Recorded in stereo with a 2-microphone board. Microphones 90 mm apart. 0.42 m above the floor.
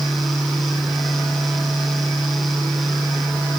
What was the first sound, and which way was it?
Only background noise.